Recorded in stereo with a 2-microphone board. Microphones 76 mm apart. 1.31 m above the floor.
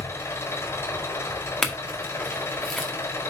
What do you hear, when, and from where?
0.0 s an engine running: 40° left (ahead or behind), 4.5 m
1.6 s a clink: 5° left (ahead or behind), 1.6 m